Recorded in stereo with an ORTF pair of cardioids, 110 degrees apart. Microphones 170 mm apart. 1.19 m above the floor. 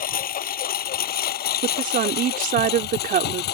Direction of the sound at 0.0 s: 55° left.